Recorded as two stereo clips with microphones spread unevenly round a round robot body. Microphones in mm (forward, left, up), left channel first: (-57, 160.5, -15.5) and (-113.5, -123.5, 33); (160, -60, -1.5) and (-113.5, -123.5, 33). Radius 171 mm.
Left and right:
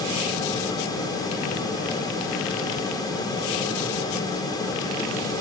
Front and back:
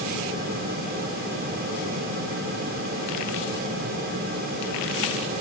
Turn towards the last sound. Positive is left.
No sound to turn to.